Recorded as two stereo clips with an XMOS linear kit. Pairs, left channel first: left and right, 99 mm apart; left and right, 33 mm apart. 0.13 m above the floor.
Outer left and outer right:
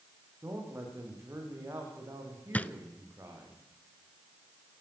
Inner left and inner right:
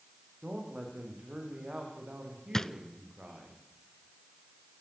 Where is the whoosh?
No whoosh in this recording.